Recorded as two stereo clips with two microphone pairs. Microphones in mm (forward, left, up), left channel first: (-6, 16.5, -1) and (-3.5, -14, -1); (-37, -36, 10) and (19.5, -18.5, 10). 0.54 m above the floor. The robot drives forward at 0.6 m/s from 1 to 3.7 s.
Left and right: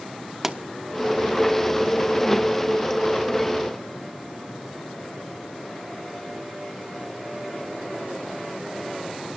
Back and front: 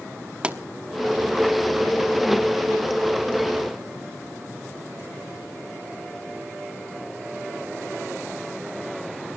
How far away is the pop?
About 1.0 m.